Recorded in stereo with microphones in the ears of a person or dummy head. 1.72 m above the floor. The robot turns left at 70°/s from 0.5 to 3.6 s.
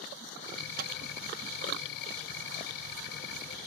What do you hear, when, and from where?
0.8 s a microwave: 55° right (ahead or behind); by 0.9 s 65° right (ahead or behind)